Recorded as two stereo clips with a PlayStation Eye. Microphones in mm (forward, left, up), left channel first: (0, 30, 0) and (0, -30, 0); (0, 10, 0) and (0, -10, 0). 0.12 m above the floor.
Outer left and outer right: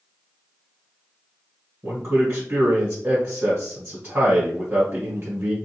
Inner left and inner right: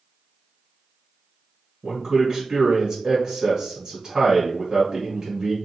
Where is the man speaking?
25° right (ahead or behind), 1.4 m.